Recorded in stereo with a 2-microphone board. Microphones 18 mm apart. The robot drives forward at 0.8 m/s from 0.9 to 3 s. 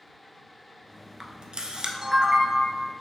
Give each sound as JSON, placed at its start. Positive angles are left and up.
{"t": 1.2, "sound": "a camera shutter", "side_deg": -50, "distance_m": 0.6}